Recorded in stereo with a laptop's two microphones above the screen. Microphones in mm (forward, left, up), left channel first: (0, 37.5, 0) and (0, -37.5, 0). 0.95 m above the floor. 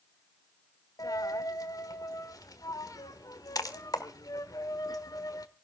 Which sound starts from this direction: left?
A dropped coin, at 1.0 s.